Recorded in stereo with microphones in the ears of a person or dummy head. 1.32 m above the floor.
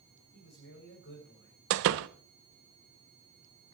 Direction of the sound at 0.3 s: 60° left (ahead or behind).